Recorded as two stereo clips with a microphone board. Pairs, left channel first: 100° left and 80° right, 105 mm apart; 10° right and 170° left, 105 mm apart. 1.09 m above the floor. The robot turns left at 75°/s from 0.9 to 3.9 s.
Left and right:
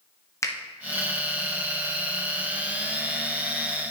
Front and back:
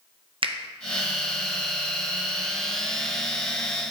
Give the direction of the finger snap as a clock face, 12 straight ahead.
7 o'clock.